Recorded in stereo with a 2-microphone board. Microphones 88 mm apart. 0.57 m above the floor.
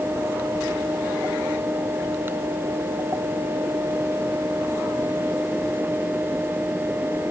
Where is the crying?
No crying in this recording.